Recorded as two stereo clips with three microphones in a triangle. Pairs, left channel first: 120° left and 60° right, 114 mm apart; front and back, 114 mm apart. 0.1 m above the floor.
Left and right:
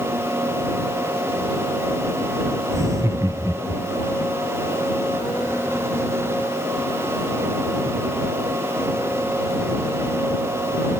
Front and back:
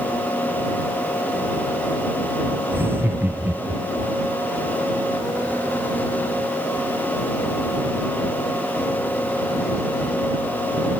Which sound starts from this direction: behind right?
Laughter, at 2.7 s.